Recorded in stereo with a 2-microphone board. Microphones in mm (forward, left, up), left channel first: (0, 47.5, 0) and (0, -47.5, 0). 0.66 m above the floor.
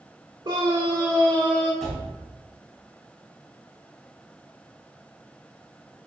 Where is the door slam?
Centre (ahead or behind), 3 m.